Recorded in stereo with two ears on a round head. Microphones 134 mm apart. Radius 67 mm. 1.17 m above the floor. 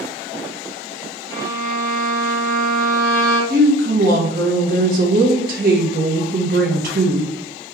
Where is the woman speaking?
65° right (ahead or behind), 1.1 m.